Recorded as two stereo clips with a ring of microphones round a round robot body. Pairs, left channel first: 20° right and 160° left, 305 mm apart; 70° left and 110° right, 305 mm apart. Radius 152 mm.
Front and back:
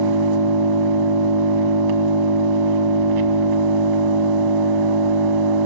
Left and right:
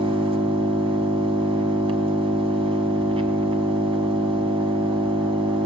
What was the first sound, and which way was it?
An engine running, 175° left.